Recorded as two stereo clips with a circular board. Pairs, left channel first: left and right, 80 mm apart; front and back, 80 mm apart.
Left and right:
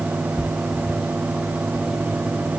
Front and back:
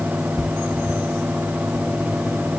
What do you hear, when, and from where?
Only background noise.